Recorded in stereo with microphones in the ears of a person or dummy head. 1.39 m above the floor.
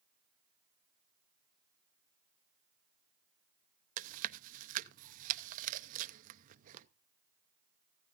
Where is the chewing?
45° right (ahead or behind), 0.6 m.